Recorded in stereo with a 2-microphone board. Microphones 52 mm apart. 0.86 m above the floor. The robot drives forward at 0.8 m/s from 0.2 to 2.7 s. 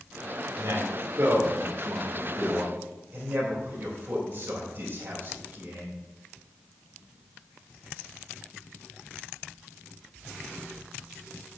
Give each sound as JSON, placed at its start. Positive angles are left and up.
{"t": 0.6, "sound": "a man speaking", "side_deg": -75, "distance_m": 1.9}